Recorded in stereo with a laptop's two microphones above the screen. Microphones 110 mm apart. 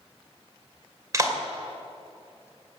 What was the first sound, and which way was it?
A clap, 30° right (ahead or behind).